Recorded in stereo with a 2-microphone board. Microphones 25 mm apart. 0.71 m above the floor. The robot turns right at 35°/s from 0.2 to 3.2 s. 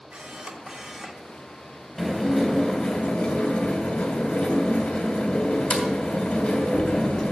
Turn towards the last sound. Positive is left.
turn(degrees=35)